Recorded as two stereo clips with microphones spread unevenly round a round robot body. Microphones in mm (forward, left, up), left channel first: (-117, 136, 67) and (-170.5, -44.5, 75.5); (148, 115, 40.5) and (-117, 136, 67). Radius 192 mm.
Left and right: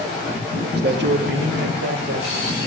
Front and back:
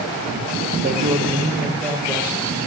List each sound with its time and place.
0.7 s a man speaking: 125° right, 2.0 m; by 2.6 s 90° right, 2.5 m